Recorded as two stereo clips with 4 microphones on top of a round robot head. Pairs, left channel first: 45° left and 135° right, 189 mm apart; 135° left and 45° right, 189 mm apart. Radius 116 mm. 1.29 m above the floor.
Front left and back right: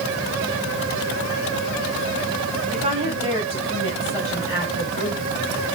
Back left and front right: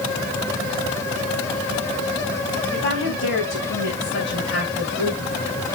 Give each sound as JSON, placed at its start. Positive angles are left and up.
{"t": 2.7, "sound": "a woman speaking", "azimuth_deg": 160, "distance_m": 8.5}